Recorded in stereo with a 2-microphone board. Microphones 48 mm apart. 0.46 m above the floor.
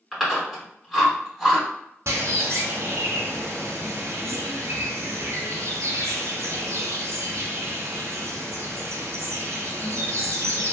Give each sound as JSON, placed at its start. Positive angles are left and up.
{"t": 0.1, "sound": "chewing", "side_deg": -5, "distance_m": 1.8}
{"t": 2.1, "sound": "a bird", "side_deg": -70, "distance_m": 0.9}